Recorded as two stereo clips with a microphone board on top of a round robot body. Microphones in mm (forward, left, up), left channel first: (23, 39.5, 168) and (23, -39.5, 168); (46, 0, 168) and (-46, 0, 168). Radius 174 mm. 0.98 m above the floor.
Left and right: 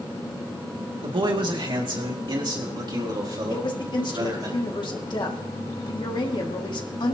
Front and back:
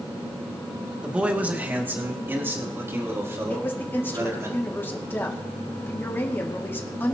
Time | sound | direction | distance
1.0 | a man speaking | 100° right | 2 m
3.5 | a woman speaking | 70° left | 2 m